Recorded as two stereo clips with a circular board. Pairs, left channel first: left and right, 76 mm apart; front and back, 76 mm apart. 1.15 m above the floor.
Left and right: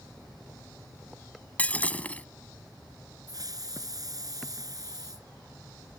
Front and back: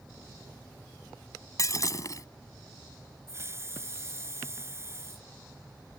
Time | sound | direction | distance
1.6 | breaking glass | 25° left | ?
3.3 | a hiss | 125° right | ?